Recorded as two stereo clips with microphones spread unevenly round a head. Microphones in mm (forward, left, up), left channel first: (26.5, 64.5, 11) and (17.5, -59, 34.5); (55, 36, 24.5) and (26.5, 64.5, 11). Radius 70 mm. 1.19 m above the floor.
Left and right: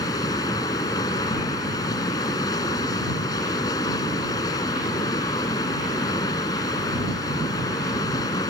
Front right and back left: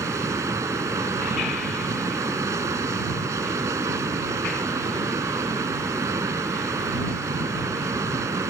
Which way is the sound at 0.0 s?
155° left.